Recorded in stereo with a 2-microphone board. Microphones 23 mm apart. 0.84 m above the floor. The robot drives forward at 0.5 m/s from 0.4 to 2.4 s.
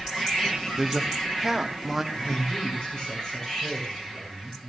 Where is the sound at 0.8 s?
15° right (ahead or behind), 1.4 m; by 2.0 s 10° right (ahead or behind), 1.9 m.